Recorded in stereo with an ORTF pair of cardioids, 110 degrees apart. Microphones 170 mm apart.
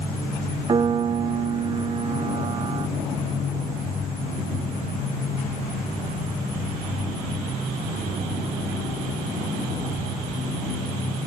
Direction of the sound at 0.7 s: 30° right.